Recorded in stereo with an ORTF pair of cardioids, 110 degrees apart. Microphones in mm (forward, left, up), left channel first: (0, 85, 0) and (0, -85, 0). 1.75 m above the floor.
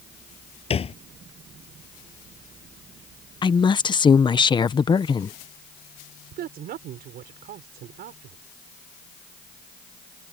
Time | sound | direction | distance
0.7 | a thud | 40° left | ?
3.4 | a woman speaking | 30° left | ?
6.3 | a woman speaking | 65° right | ?